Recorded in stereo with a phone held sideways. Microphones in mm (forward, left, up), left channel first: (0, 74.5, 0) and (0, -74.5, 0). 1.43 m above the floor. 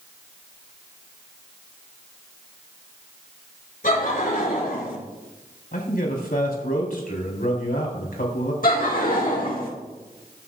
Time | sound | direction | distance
3.8 | laughter | 65° left (ahead or behind) | 5.5 m
5.7 | a man speaking | 80° left | 3.5 m
8.6 | laughter | 70° left (ahead or behind) | 1.7 m